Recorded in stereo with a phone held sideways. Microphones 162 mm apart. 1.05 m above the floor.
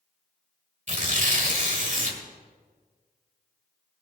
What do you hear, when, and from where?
0.9 s tearing paper: 50° right (ahead or behind), 1.6 m